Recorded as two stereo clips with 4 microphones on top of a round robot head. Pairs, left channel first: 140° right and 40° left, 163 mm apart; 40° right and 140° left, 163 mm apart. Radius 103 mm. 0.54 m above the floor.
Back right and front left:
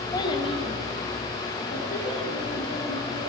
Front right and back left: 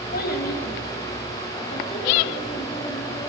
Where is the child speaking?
70° right, 2.5 m; by 3.3 s 105° right, 6.5 m.